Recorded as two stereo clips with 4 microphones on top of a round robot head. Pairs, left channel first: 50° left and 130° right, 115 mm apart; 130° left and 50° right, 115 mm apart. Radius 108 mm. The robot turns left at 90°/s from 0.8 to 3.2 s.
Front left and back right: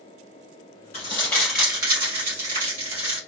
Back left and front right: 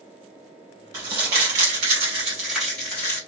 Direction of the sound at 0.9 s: 10° left.